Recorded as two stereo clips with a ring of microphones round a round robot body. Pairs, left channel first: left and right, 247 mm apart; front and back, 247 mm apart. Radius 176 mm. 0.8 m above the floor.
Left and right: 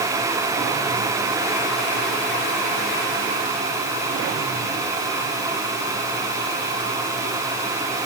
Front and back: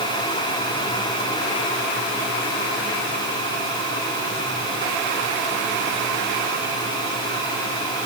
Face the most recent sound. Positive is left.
No sound to turn to.